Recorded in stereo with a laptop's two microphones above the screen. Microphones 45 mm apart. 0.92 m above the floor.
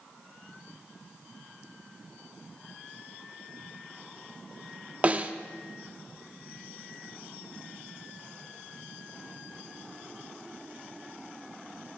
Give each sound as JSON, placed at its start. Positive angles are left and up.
{"t": 5.0, "sound": "a snare drum", "side_deg": -30, "distance_m": 0.7}